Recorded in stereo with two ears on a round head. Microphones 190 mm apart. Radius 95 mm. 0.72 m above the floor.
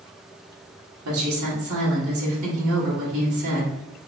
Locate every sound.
1.1 s a woman speaking: 70° right (ahead or behind), 1.3 m